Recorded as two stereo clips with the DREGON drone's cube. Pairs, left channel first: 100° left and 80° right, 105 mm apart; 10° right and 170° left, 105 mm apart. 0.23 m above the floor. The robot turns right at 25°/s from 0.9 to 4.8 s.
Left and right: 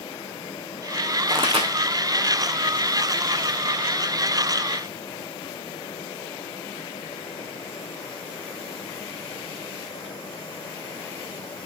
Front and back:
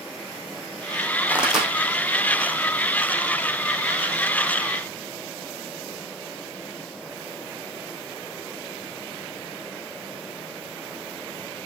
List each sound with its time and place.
1.3 s a pop: 110° right, 3.5 m; by 1.7 s 100° right, 3.5 m